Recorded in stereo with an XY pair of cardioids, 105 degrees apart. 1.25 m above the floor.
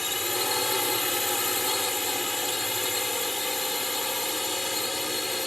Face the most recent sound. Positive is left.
turn(degrees=10)